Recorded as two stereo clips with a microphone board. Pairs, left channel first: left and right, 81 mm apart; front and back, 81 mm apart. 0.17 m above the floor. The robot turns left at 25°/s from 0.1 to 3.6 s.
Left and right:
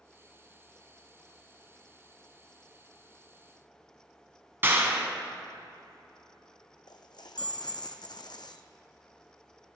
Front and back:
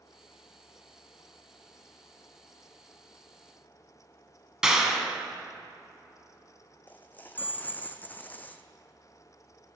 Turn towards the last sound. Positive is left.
turn(degrees=65)